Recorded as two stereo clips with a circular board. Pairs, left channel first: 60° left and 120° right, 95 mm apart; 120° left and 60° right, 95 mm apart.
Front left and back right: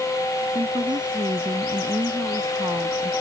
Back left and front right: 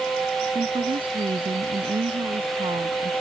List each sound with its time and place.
0.6 s a woman speaking: 85° right; by 3.1 s 75° right